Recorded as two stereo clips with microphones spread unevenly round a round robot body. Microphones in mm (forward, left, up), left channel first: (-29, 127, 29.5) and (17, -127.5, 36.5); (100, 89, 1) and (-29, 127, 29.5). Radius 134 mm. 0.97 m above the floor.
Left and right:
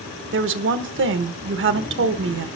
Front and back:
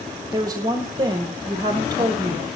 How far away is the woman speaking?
About 1.0 m.